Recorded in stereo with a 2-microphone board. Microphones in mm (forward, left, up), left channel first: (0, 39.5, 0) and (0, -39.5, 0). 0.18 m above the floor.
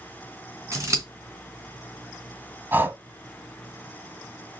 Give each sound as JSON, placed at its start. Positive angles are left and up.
{"t": 0.7, "sound": "scissors", "side_deg": -40, "distance_m": 2.5}
{"t": 2.7, "sound": "breathing", "side_deg": -20, "distance_m": 0.9}